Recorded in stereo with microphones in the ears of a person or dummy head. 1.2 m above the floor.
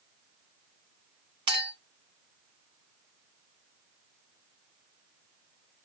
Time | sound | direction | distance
1.5 | a clink | 25° right (ahead or behind) | 0.6 m